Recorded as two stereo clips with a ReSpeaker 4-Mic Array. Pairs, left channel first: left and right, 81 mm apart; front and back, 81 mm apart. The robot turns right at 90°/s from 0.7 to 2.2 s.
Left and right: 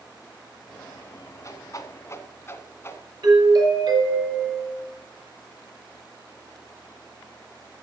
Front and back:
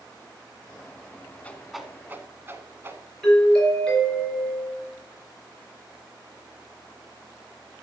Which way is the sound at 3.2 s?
80° right.